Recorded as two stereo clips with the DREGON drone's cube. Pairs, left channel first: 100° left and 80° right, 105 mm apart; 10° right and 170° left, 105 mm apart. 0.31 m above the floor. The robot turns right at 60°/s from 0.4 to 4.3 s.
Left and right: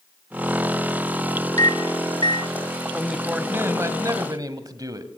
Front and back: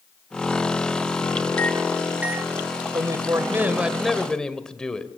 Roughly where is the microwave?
Ahead left.